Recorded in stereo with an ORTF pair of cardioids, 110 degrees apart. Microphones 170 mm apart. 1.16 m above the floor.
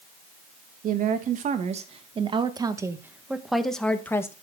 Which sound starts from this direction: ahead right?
A woman speaking, at 0.8 s.